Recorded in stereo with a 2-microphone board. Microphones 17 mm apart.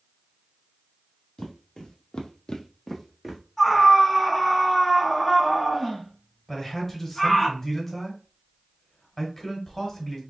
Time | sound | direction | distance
1.4 | footsteps | 55° left (ahead or behind) | 1.2 m
3.6 | a scream | 10° left (ahead or behind) | 1.4 m
6.5 | a man speaking | 20° left (ahead or behind) | 1.4 m